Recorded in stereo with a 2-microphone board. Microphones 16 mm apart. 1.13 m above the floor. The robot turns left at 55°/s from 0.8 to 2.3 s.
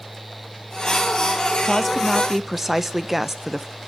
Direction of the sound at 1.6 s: 20° left.